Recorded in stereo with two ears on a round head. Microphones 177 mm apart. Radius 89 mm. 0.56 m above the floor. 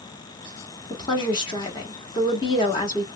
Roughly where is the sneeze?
I don't hear a sneeze.